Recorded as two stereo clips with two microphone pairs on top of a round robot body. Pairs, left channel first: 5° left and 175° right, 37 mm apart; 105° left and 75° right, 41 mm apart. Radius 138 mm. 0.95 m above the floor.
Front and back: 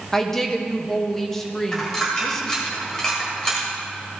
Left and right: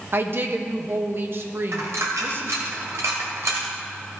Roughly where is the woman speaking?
Right.